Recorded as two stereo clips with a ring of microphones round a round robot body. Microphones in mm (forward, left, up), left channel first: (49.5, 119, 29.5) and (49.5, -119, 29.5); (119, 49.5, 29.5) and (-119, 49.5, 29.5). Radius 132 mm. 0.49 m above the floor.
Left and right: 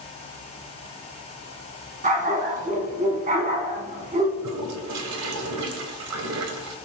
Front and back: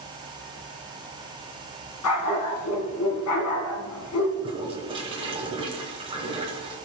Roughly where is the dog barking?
Ahead right.